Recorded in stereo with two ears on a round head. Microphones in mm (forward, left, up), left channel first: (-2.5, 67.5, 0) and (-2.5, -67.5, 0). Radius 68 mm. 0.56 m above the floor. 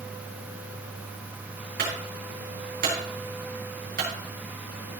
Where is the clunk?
75° right (ahead or behind), 5.5 m.